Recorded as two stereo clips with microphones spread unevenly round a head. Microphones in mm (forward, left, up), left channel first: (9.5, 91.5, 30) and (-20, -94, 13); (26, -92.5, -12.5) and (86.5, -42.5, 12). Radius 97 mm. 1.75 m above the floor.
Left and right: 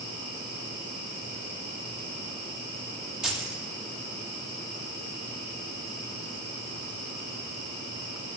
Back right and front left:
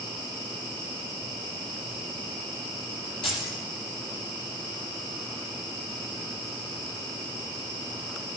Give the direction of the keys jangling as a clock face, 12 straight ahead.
6 o'clock.